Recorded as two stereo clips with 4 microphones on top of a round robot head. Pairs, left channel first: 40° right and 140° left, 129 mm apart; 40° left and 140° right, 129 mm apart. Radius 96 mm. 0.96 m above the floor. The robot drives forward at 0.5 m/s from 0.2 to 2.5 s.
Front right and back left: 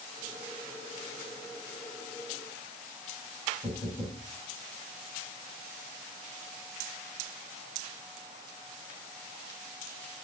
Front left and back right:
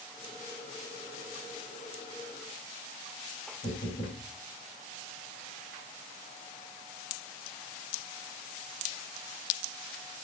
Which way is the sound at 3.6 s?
30° left.